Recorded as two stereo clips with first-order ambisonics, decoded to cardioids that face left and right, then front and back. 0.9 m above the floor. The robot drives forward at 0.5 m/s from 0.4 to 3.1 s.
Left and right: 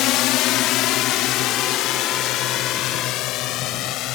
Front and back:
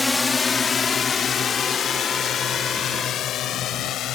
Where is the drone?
85° left; by 4.2 s 50° left.